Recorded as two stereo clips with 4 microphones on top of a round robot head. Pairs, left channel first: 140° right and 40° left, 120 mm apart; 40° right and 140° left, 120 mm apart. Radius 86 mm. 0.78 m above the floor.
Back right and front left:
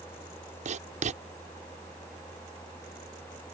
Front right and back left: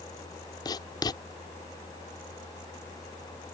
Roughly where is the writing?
Ahead.